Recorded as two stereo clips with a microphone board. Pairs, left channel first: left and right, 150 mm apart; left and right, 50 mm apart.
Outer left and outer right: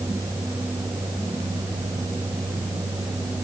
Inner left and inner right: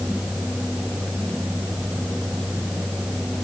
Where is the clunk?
No clunk in this recording.